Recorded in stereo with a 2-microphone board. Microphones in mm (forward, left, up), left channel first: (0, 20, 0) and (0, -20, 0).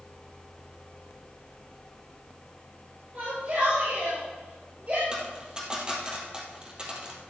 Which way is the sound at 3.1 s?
45° right (ahead or behind).